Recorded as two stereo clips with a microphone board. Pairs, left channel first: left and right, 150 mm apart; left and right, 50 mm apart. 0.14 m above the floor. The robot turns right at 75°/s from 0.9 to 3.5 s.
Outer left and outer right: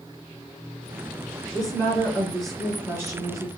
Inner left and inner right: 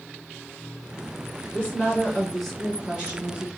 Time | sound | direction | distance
1.5 | a woman speaking | 25° left (ahead or behind) | 1.5 m